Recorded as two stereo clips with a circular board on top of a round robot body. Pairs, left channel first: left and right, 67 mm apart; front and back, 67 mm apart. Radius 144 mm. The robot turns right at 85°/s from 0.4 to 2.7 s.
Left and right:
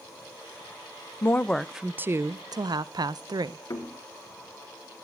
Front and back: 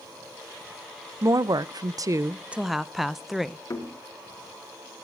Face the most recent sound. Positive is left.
turn(degrees=50)